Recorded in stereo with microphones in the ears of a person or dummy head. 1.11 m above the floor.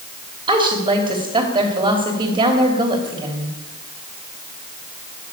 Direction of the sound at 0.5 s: 25° right (ahead or behind).